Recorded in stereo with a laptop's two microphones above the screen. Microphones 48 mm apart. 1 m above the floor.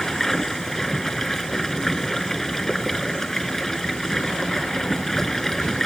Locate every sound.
0.0 s running water: 5° left (ahead or behind)